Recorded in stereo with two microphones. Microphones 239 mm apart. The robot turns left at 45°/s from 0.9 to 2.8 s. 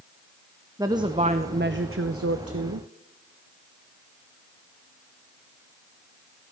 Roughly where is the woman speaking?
Ahead.